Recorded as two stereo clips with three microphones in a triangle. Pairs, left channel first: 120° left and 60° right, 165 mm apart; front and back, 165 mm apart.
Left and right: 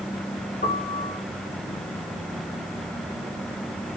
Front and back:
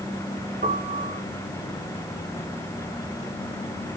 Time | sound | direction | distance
0.6 | a piano | 150° left | 1.3 m